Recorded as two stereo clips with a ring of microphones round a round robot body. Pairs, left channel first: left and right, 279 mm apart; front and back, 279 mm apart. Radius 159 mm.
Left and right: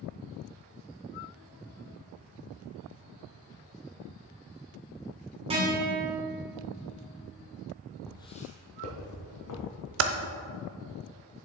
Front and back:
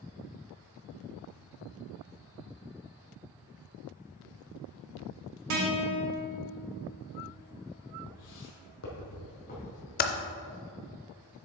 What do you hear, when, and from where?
5.5 s a guitar: 160° right, 1.7 m
8.1 s footsteps: 5° left, 1.1 m; by 9.7 s 65° left, 2.5 m
10.0 s typing on a keyboard: 55° right, 0.6 m